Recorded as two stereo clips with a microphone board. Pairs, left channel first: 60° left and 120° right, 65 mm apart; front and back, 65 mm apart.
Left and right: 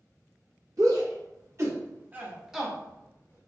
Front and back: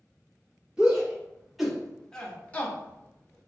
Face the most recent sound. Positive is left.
turn(degrees=30)